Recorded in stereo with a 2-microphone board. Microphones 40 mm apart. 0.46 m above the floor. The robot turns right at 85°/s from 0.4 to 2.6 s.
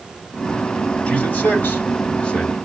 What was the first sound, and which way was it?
A man speaking, 35° left (ahead or behind).